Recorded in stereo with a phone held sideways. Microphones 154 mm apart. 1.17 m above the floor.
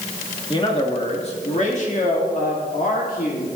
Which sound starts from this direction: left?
A man speaking, at 0.5 s.